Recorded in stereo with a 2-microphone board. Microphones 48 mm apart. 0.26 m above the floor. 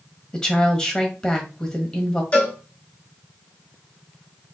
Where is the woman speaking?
15° left (ahead or behind), 1.2 m.